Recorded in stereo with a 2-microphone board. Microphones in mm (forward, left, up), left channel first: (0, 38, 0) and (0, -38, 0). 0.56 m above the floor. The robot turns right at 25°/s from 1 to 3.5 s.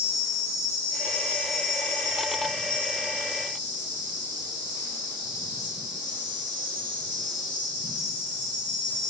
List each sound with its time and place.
0.0 s an insect: 55° left, 1.8 m; by 9.1 s 120° left, 1.8 m